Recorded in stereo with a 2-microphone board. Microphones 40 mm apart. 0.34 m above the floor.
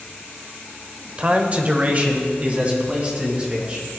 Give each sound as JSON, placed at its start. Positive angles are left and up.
{"t": 1.2, "sound": "a man speaking", "side_deg": -30, "distance_m": 0.9}